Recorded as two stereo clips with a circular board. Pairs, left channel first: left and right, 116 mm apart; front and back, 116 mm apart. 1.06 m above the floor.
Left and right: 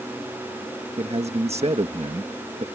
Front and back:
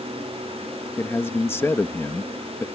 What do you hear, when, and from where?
1.0 s a man speaking: 70° right